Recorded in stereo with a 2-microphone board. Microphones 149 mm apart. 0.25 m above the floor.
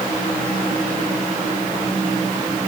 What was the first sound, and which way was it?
Only background noise.